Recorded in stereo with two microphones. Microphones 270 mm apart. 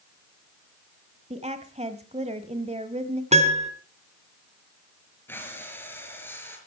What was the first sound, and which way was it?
A woman speaking, 25° right (ahead or behind).